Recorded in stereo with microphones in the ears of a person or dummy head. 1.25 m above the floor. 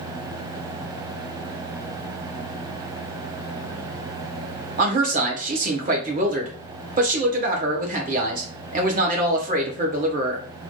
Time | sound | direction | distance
4.8 | a man speaking | 35° right (ahead or behind) | 0.8 m